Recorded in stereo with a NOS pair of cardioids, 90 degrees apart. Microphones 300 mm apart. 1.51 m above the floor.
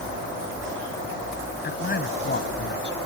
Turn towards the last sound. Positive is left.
turn(degrees=35)